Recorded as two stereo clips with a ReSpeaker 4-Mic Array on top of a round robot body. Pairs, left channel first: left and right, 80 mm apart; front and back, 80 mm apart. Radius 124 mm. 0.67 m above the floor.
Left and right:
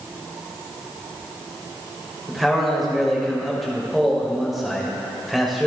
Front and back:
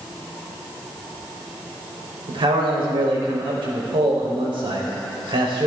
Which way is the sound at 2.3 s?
Straight behind.